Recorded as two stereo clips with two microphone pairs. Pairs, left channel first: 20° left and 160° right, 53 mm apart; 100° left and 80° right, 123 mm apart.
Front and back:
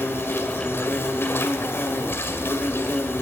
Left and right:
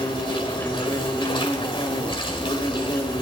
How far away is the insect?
About 2.5 m.